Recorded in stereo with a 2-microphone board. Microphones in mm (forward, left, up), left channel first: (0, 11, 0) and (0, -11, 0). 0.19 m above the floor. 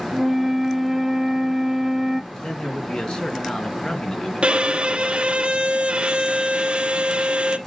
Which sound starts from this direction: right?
A violin, at 4.4 s.